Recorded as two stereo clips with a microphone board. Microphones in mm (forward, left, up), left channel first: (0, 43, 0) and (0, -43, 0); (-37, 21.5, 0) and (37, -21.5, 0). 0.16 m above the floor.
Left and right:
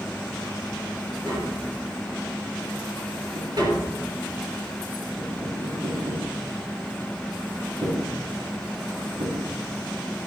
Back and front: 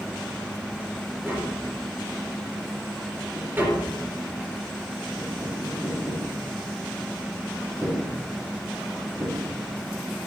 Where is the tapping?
95° right, 3 m.